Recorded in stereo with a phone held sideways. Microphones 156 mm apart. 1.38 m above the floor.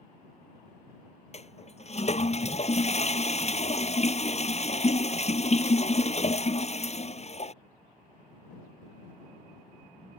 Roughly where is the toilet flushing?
Left.